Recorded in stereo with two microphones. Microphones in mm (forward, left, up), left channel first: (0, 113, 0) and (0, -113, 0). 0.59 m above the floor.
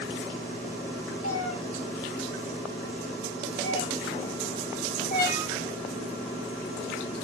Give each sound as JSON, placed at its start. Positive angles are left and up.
{"t": 1.2, "sound": "a cat meowing", "side_deg": 80, "distance_m": 5.0}